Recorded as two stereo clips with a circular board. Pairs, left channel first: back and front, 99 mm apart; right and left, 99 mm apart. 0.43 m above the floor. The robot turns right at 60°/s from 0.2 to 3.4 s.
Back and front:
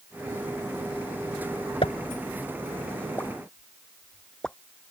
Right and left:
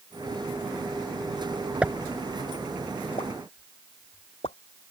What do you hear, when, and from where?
1.8 s a pop: 165° left; by 4.6 s 95° right